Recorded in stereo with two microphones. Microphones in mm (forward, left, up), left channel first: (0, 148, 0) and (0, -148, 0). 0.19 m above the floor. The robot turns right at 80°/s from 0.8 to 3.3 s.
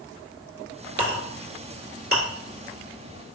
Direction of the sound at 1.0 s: 45° right (ahead or behind).